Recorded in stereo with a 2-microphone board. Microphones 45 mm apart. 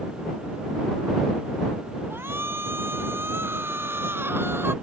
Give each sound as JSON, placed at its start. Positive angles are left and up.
{"t": 2.1, "sound": "a shout", "side_deg": -65}